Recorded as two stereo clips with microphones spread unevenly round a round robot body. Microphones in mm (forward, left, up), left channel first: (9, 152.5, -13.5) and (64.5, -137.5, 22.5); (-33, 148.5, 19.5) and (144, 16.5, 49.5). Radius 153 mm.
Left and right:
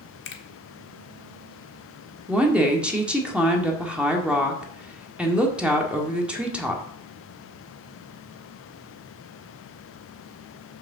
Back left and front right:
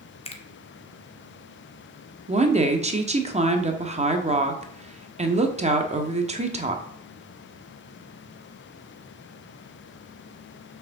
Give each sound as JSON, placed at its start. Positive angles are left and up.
{"t": 0.2, "sound": "a finger snap", "azimuth_deg": 105, "distance_m": 1.4}
{"t": 2.3, "sound": "a woman speaking", "azimuth_deg": 15, "distance_m": 1.4}